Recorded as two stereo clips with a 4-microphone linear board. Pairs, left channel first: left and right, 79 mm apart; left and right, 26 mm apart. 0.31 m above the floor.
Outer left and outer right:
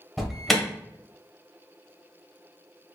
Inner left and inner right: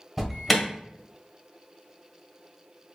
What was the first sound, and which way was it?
An alarm, centre (ahead or behind).